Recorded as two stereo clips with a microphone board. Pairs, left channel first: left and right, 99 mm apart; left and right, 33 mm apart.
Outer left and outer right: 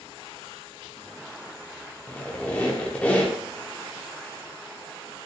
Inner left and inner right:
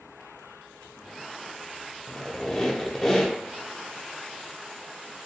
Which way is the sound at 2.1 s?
15° left (ahead or behind).